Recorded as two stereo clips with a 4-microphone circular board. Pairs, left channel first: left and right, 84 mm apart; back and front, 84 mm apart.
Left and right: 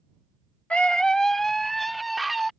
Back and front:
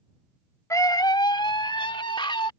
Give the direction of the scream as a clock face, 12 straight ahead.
7 o'clock.